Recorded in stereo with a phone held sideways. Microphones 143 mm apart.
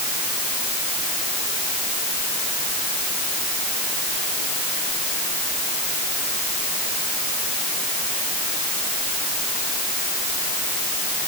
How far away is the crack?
I don't hear a crack.